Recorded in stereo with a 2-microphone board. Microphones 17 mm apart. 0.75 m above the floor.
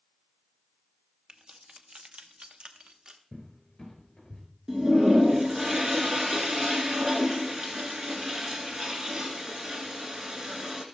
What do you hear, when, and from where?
1.3 s keys jangling: 50° right (ahead or behind), 0.9 m; by 3.2 s 45° right (ahead or behind), 1.0 m
3.3 s a cupboard door: 30° left (ahead or behind), 3.5 m
4.7 s a toilet flushing: 45° right (ahead or behind), 1.5 m